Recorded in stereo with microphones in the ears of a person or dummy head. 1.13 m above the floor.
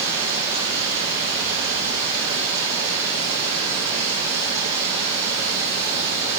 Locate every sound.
0.0 s running water: 15° right (ahead or behind), 9 m